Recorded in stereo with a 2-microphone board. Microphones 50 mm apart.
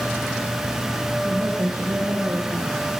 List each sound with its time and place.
1.2 s a woman speaking: 65° right (ahead or behind), 6.5 m